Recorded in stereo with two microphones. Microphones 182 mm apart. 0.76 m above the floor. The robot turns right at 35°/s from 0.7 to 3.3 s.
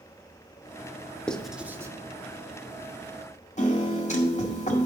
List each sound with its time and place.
1.3 s writing: 5° left (ahead or behind), 0.8 m; by 1.9 s 20° right (ahead or behind), 0.8 m
3.6 s a piano: 40° left (ahead or behind), 1.8 m